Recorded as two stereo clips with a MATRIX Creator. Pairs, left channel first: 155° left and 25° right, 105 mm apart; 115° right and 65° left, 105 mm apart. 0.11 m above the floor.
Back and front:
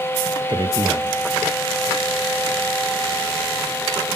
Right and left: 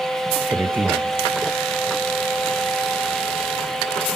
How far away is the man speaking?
About 2 m.